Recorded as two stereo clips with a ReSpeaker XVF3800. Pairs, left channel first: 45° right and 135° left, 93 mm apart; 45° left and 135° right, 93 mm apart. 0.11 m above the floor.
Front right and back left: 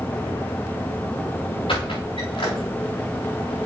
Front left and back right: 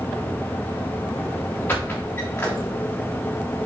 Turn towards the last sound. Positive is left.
turn(degrees=-20)